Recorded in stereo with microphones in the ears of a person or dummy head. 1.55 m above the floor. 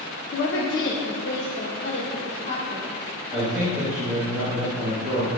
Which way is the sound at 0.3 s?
55° left (ahead or behind).